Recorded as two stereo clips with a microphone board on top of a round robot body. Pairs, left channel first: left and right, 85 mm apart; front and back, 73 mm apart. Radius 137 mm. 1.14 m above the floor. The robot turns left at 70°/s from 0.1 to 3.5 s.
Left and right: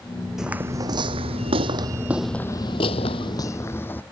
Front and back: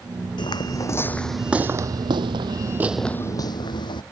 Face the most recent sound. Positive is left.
turn(degrees=20)